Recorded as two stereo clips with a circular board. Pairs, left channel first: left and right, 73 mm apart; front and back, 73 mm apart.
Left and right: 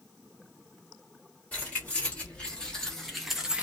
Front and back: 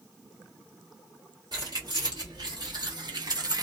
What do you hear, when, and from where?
1.5 s keys jangling: 160° left, 1.5 m; by 3.6 s 165° right, 0.6 m